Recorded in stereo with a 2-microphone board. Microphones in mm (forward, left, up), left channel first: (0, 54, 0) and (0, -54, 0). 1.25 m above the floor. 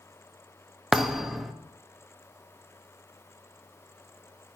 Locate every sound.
0.9 s a thud: centre (ahead or behind), 0.7 m